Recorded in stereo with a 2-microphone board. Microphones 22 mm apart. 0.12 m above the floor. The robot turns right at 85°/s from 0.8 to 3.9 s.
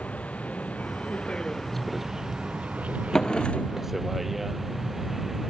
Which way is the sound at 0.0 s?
85° left.